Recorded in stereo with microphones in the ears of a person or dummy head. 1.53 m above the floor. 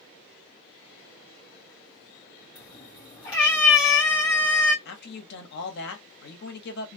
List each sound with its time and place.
2.5 s a cat meowing: 10° left (ahead or behind), 0.9 m
4.8 s a man speaking: 65° left (ahead or behind), 1.2 m